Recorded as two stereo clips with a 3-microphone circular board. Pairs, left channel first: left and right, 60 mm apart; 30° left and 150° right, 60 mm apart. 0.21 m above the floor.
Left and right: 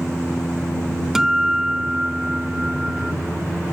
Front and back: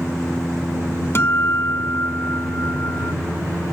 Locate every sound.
1.1 s a guitar: 10° right